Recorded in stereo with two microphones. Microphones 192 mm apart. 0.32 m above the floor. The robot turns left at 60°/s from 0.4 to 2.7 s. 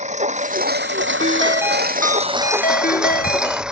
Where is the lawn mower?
35° right; by 3.7 s 175° right.